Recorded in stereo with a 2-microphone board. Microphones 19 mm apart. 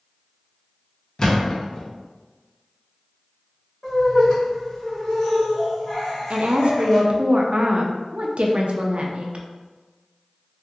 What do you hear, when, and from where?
1.2 s a thud: 30° left (ahead or behind), 0.7 m
3.8 s laughter: 45° left (ahead or behind), 1.8 m
6.3 s a woman speaking: 65° right (ahead or behind), 0.5 m